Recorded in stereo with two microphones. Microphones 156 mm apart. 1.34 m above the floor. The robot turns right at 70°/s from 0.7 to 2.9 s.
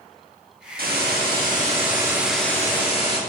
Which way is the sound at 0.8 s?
110° right.